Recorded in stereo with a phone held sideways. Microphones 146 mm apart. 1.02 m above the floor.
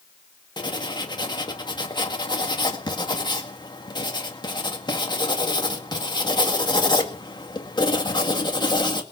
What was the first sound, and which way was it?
Writing, 30° left (ahead or behind).